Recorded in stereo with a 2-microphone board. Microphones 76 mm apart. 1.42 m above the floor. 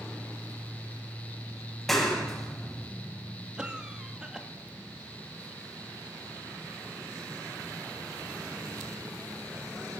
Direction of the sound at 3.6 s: 10° right (ahead or behind).